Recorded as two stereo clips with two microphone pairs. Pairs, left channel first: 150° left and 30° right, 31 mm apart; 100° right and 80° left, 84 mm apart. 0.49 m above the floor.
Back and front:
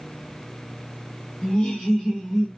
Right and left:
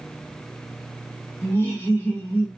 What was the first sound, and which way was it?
Laughter, 160° right.